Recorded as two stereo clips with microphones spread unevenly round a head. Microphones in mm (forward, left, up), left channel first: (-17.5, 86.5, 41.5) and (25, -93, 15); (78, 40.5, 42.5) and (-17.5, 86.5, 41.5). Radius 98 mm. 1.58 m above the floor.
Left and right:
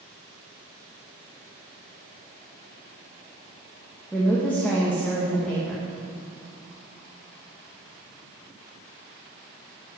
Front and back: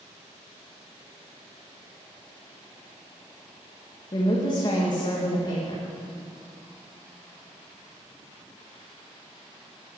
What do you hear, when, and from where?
4.1 s a woman speaking: 20° left, 2.5 m